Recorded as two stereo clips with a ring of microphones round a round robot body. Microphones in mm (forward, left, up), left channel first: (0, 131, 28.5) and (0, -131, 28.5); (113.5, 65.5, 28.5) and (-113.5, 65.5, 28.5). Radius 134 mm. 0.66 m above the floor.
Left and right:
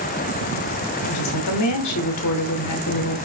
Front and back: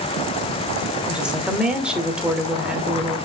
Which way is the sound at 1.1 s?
95° left.